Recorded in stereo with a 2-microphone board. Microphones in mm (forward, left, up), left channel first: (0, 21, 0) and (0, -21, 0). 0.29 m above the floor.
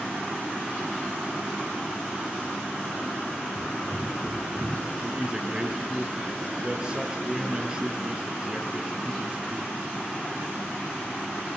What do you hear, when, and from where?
3.5 s running footsteps: 10° right (ahead or behind), 5.5 m; by 4.8 s 20° right (ahead or behind), 5.5 m
5.0 s a woman speaking: 20° right (ahead or behind), 3 m